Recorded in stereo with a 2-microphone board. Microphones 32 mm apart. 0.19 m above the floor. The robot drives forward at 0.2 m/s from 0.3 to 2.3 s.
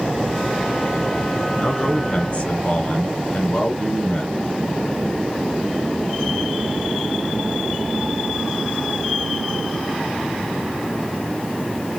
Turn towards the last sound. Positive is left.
turn(degrees=45)  # may be behind; listen again after turning